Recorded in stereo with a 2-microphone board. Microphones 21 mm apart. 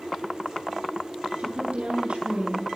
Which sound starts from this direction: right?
A woman speaking, at 1.4 s.